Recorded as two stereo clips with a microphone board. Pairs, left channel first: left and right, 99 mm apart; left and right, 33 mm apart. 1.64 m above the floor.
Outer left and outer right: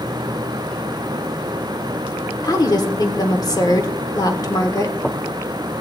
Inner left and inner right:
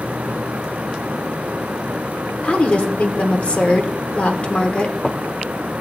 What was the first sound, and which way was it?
A woman speaking, 40° left (ahead or behind).